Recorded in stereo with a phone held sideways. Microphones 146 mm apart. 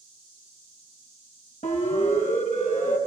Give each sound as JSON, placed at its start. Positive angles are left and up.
{"t": 1.6, "sound": "a siren", "side_deg": 50, "distance_m": 5.5}